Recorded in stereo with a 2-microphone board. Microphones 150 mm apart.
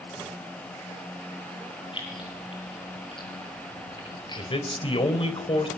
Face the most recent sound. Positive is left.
turn(degrees=35)  # may be behind; listen again after turning